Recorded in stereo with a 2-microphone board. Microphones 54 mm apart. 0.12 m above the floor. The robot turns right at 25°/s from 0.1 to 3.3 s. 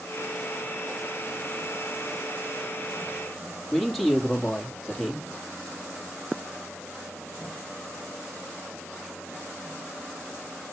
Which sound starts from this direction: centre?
A man speaking, at 3.7 s.